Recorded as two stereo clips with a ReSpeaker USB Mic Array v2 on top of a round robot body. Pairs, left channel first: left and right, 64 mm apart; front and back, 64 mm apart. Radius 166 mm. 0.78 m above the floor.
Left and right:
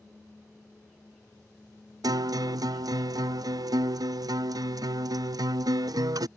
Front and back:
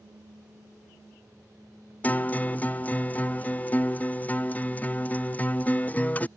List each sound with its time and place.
2.0 s a guitar: 65° right